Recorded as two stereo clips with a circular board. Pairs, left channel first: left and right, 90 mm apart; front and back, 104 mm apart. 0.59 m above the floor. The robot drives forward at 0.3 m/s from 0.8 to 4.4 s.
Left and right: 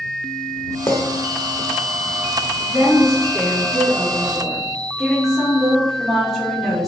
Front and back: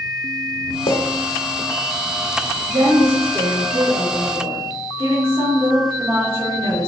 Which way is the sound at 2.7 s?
Straight behind.